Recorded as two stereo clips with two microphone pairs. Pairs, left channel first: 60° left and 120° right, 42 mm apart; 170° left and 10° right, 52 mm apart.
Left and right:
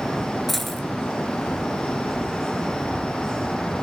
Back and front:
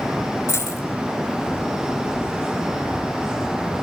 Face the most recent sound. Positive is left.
turn(degrees=145)